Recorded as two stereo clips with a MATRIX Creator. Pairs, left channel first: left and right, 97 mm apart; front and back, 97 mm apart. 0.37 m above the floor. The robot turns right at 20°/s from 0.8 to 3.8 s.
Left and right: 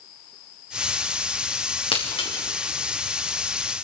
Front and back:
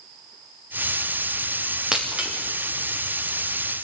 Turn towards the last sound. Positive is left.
turn(degrees=135)